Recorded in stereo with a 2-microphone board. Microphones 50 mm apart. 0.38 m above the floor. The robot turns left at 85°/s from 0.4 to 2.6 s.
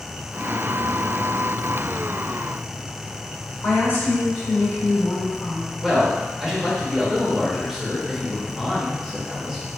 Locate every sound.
3.6 s a woman speaking: 40° left (ahead or behind), 1.7 m
5.8 s a man speaking: 10° right (ahead or behind), 0.9 m